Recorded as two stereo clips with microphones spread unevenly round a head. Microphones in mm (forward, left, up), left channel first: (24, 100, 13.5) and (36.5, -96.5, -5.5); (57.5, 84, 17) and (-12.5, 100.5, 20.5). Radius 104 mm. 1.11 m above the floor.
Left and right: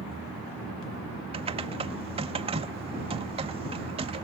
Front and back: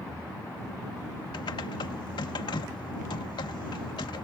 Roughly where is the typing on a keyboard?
Ahead right.